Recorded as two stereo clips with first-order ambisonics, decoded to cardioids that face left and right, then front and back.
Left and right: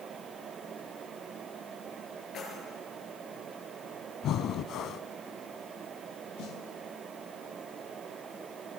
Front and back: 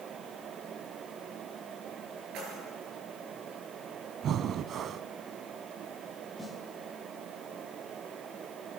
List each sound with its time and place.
2.3 s keys jangling: 145° left, 7.5 m
4.2 s breathing: 130° left, 0.6 m
6.4 s a snare drum: 75° left, 2 m